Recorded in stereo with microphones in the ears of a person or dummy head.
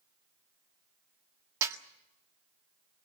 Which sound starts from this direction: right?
A snare drum, at 1.6 s.